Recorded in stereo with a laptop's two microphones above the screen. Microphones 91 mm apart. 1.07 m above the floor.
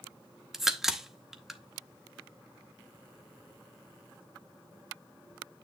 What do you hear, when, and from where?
0.5 s a crack: 5° right (ahead or behind), 0.8 m